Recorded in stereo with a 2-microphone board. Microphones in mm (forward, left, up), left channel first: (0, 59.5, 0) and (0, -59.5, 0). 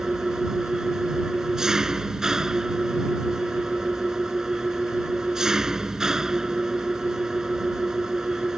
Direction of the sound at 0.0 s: 5° right (ahead or behind).